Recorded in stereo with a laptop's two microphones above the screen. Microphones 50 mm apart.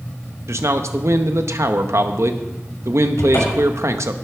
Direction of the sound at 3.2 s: 75° left (ahead or behind).